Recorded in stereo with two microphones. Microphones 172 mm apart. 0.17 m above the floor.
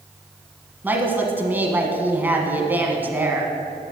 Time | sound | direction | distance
0.8 | a woman speaking | 10° right (ahead or behind) | 1.1 m